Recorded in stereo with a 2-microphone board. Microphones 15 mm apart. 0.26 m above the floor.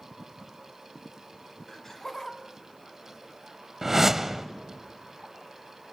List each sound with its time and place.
1.7 s laughter: 25° left (ahead or behind), 1.4 m; by 3.7 s 30° left (ahead or behind), 2.5 m
3.8 s a whoosh: 25° right (ahead or behind), 0.8 m